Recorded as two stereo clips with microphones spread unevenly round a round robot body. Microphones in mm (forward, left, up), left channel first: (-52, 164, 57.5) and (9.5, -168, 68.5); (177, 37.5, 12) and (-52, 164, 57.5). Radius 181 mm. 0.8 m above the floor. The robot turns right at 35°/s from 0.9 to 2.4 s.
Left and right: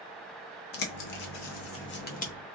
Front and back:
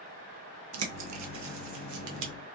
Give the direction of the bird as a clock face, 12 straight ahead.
8 o'clock.